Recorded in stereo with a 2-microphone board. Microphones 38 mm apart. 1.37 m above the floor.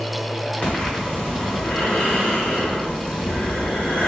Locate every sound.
0.6 s breathing: 40° left (ahead or behind), 1.4 m